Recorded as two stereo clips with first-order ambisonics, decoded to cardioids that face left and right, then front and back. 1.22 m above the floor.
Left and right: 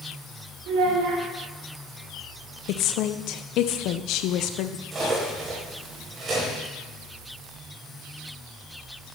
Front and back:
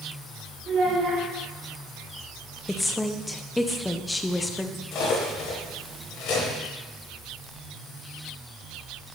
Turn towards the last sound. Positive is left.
turn(degrees=-30)